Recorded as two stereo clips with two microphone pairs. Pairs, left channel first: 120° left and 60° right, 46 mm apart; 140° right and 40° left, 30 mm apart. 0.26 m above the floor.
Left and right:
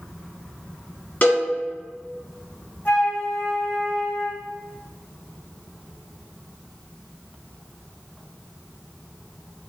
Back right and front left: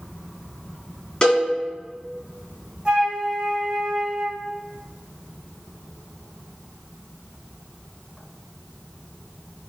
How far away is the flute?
About 1.8 m.